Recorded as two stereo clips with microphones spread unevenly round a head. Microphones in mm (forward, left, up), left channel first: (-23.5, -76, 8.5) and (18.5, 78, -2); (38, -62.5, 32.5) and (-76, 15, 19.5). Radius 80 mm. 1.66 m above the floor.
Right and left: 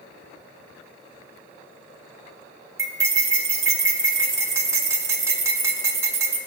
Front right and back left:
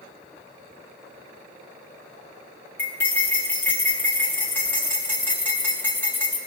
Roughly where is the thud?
I don't hear a thud.